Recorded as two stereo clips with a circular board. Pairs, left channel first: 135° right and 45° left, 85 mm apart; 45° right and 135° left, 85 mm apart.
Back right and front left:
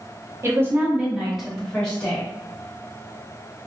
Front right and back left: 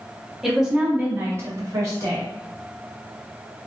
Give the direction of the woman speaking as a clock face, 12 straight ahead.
10 o'clock.